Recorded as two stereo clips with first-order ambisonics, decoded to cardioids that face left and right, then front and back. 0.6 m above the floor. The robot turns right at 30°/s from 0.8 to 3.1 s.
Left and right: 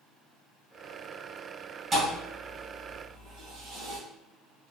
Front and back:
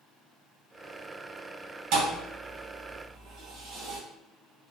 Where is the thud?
160° right, 1.8 m; by 4.0 s 125° right, 1.8 m.